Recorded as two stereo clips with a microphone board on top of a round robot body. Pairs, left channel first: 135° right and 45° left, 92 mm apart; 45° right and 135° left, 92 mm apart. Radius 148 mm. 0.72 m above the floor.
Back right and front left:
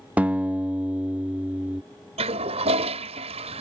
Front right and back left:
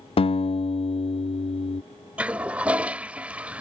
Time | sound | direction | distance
0.2 | a guitar | 30° right | ?
2.2 | a toilet flushing | 55° left | ?